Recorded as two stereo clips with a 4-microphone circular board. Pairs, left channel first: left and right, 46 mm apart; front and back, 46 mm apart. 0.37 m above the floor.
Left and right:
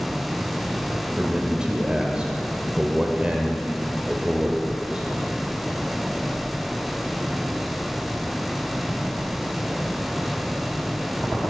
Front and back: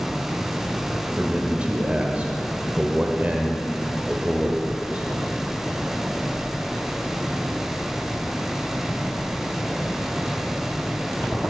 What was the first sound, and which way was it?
A man speaking, 145° right.